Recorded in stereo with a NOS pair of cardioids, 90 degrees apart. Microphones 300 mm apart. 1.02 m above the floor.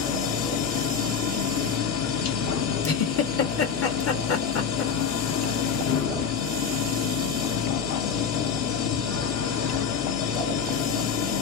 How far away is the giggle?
About 1.1 m.